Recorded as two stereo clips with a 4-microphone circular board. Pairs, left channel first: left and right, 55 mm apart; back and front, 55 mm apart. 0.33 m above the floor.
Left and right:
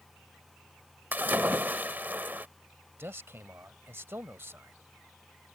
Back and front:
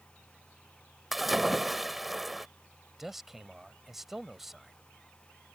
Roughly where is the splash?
Right.